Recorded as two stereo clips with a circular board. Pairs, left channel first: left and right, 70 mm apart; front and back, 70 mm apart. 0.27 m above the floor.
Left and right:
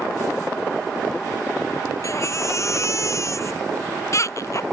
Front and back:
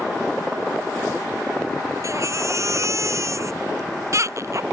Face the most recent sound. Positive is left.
turn(degrees=135)